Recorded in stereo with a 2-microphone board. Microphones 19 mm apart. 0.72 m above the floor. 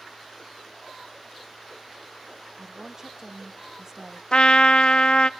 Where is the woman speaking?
25° right (ahead or behind), 0.9 m.